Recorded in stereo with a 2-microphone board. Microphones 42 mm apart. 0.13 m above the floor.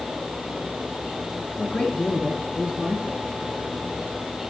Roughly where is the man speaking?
Left.